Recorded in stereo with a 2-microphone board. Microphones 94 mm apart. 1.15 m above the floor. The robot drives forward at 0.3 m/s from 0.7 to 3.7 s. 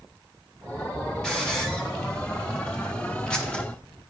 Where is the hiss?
5° left (ahead or behind), 2 m; by 3.6 s 10° left (ahead or behind), 1.4 m.